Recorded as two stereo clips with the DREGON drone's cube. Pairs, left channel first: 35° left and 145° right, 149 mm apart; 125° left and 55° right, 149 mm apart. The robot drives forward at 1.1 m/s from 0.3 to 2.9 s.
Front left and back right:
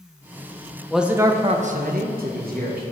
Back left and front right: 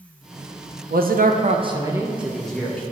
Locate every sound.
0.9 s a man speaking: 55° right, 1.0 m; by 2.8 s 155° right, 1.8 m